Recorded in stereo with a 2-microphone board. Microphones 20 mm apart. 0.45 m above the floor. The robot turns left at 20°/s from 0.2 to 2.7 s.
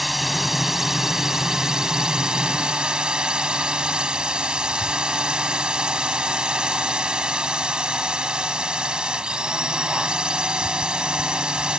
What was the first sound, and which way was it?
A drone, 5° right.